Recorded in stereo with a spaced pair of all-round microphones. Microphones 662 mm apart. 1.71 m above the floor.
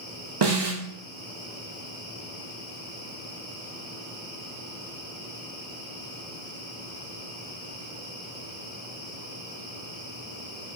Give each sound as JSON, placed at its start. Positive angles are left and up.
{"t": 0.4, "sound": "a snare drum", "side_deg": -40, "distance_m": 0.6}